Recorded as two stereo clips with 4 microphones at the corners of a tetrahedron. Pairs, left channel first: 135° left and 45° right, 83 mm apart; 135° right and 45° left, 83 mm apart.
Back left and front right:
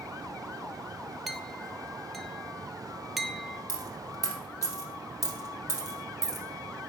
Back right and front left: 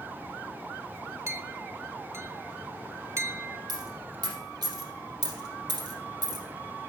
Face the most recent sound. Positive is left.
turn(degrees=75)